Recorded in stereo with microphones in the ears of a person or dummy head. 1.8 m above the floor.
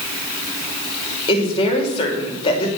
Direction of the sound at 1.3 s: 35° left (ahead or behind).